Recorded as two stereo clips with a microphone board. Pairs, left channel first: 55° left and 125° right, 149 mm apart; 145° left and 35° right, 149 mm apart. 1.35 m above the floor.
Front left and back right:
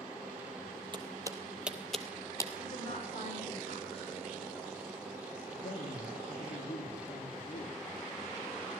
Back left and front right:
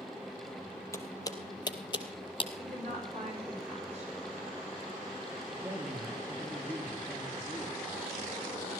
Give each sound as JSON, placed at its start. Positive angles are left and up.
{"t": 0.9, "sound": "footsteps", "azimuth_deg": -155, "distance_m": 1.6}
{"t": 2.6, "sound": "a woman speaking", "azimuth_deg": 10, "distance_m": 5.5}
{"t": 5.5, "sound": "a man speaking", "azimuth_deg": 35, "distance_m": 3.5}